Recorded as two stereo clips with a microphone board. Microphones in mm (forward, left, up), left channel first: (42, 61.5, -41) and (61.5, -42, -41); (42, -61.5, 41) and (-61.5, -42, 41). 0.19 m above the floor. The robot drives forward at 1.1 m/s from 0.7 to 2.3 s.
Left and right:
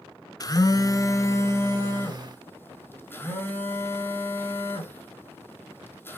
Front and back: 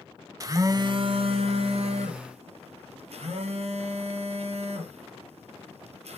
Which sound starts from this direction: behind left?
A phone buzzing, at 0.4 s.